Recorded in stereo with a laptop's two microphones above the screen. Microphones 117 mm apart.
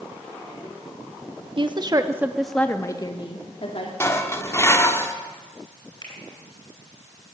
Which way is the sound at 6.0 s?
40° left (ahead or behind).